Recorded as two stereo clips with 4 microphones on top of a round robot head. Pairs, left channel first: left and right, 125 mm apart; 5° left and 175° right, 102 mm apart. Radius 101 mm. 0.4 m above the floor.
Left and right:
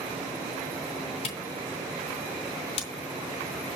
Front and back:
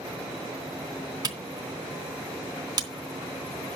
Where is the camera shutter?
140° left, 3 m.